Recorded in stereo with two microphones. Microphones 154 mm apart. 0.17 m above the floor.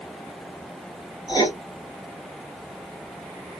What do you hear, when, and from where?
1.3 s writing: 25° left (ahead or behind), 1.7 m